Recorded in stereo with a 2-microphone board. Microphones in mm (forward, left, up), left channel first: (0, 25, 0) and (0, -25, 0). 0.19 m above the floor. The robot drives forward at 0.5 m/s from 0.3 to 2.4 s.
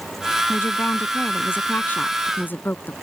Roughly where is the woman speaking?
Left.